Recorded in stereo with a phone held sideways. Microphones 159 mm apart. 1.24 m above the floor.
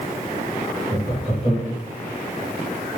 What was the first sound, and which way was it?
Laughter, centre (ahead or behind).